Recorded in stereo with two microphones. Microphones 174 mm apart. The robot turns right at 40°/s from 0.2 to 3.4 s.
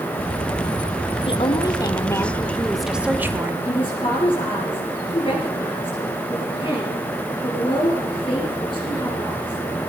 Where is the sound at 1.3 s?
120° left, 1.1 m; by 3.5 s 155° right, 1.1 m.